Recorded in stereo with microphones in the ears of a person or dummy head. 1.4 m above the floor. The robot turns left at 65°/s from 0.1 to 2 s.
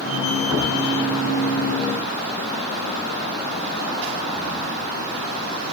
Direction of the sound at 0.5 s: 10° right (ahead or behind).